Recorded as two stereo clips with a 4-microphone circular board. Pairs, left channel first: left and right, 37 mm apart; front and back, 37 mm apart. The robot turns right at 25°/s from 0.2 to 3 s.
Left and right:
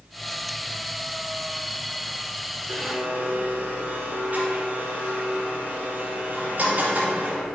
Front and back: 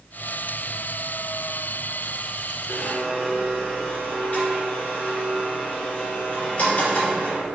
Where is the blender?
55° right, 2 m; by 7.5 s 50° right, 2 m.